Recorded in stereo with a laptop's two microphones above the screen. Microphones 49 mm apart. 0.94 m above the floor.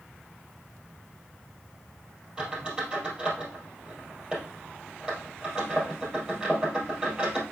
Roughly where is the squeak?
Right.